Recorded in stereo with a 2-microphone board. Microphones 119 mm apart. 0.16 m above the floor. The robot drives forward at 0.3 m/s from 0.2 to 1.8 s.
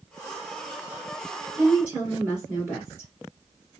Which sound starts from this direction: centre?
A woman speaking, at 1.6 s.